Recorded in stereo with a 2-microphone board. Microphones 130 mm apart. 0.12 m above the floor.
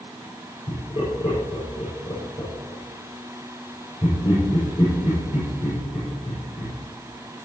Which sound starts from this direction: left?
Laughter, at 0.7 s.